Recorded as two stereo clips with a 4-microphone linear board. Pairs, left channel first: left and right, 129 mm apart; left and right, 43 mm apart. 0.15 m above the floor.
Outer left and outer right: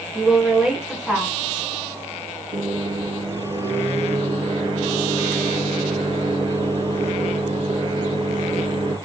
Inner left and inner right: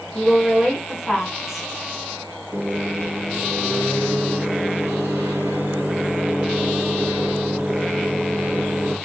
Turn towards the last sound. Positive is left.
turn(degrees=-60)  # may be behind; listen again after turning